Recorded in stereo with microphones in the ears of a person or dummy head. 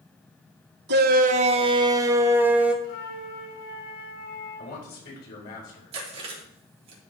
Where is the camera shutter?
No camera shutter in this recording.